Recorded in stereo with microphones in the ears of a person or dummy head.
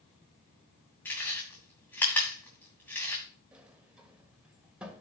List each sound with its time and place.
1.1 s chewing: 10° left (ahead or behind), 2.5 m
3.5 s a sliding door: 10° right (ahead or behind), 1.4 m